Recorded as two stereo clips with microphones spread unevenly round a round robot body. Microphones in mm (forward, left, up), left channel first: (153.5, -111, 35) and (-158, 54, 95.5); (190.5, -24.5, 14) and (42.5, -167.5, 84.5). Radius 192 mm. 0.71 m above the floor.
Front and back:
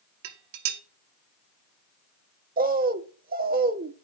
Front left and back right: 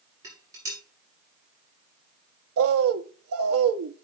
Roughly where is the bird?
Behind right.